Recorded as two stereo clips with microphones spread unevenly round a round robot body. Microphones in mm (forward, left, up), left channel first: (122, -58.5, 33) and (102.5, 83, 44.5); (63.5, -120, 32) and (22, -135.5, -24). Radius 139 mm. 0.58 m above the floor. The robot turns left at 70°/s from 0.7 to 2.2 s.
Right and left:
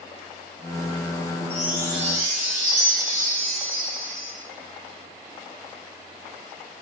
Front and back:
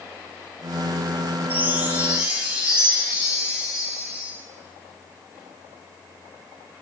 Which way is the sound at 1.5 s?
165° right.